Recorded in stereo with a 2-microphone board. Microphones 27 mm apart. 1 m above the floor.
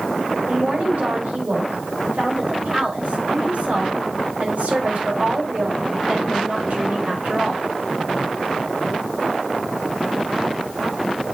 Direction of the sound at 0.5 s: 70° right (ahead or behind).